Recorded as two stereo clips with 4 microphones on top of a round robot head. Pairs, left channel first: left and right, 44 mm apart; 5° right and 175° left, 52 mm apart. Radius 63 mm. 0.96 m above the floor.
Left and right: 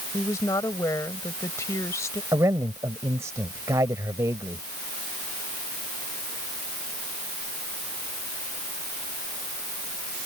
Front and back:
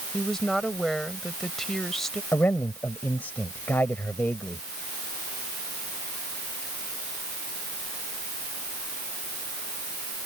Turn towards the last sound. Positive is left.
turn(degrees=-65)